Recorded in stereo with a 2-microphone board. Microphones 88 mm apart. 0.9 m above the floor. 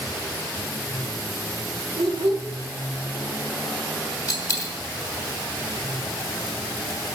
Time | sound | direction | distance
2.0 | a child speaking | 75° right (ahead or behind) | 1.9 m
4.3 | a dropped coin | 40° left (ahead or behind) | 2.5 m